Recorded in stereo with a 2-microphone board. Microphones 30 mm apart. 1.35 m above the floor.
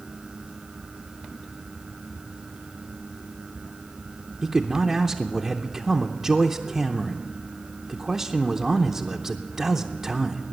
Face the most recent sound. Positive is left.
turn(degrees=-10)  # may be behind; listen again after turning